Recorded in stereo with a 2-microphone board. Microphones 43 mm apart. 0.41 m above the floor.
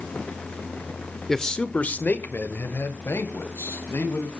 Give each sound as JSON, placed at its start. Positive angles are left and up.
{"t": 1.3, "sound": "a man speaking", "side_deg": 10, "distance_m": 1.0}